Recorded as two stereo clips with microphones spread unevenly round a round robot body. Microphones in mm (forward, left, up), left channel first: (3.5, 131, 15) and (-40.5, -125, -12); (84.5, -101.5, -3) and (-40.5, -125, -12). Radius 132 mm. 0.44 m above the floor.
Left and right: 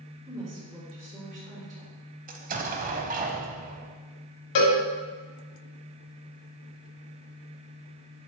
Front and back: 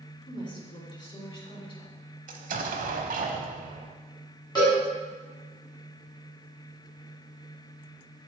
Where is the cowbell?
85° left, 1.6 m.